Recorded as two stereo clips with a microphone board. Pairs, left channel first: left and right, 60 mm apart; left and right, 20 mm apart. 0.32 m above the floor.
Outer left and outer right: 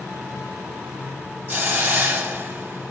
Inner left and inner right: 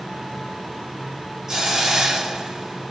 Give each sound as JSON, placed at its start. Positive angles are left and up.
{"t": 1.5, "sound": "a hiss", "side_deg": -25, "distance_m": 1.1}